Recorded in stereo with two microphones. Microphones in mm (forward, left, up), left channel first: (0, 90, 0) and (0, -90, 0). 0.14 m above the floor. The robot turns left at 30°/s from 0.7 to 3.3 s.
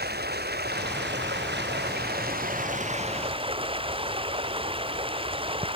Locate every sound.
0.0 s running water: 70° right; by 5.8 s 150° right